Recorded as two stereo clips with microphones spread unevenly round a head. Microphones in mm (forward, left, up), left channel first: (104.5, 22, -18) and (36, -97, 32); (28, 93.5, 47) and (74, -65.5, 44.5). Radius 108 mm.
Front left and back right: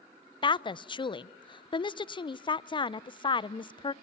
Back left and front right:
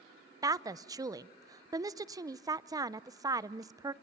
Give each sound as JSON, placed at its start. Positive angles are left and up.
{"t": 0.4, "sound": "a woman speaking", "azimuth_deg": -5, "distance_m": 0.6}